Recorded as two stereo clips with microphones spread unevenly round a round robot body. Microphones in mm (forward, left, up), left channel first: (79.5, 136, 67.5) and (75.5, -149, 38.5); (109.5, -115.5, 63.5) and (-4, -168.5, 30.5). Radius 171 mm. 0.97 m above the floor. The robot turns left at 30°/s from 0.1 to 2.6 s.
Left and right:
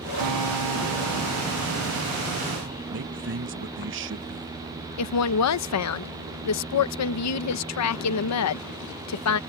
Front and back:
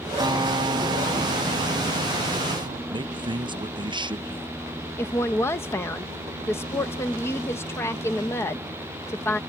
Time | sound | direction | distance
0.2 | a guitar | 95° right | ?
2.9 | a man speaking | 125° right | ?
5.0 | a woman speaking | 110° left | ?